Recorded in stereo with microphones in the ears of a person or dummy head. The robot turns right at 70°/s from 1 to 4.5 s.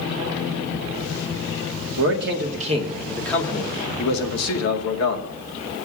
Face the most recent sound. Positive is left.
turn(degrees=90)